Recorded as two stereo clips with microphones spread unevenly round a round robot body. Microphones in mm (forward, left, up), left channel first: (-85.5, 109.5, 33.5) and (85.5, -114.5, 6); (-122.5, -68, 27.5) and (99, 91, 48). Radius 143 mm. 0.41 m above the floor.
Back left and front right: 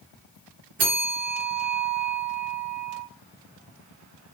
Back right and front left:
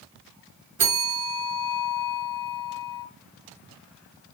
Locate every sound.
0.8 s a bell: 5° left, 1.8 m